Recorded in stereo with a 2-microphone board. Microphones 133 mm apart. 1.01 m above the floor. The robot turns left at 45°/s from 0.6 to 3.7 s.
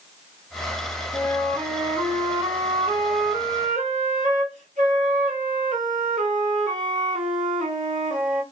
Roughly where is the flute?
Ahead.